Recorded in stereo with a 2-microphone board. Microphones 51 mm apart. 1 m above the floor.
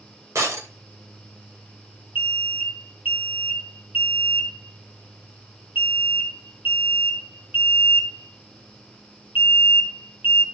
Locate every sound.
0.3 s breaking glass: 70° right (ahead or behind), 2.5 m
2.1 s an alarm: 45° right (ahead or behind), 2.5 m